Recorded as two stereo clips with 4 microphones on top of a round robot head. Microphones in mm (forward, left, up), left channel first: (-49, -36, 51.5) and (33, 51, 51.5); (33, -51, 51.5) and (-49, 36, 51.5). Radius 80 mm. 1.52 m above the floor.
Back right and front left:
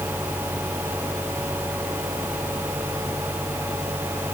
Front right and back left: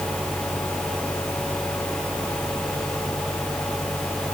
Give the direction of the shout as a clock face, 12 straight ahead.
I don't hear a shout.